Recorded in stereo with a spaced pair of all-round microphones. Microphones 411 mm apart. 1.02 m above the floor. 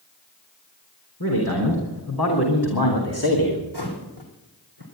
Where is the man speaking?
60° left (ahead or behind), 4 m.